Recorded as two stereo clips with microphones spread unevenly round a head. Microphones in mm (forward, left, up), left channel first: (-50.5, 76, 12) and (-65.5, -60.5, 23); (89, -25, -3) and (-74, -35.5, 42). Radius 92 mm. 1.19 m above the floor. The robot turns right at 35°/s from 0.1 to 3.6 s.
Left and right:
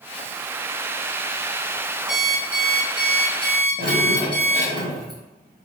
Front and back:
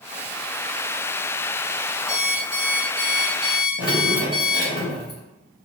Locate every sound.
2.1 s an alarm clock: 20° left, 1.1 m; by 4.8 s 75° left, 1.1 m
3.8 s dripping: 20° left, 1.2 m